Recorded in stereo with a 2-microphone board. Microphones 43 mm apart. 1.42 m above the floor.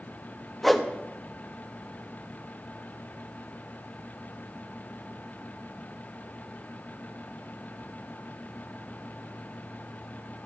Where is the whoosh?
5° left (ahead or behind), 1.0 m.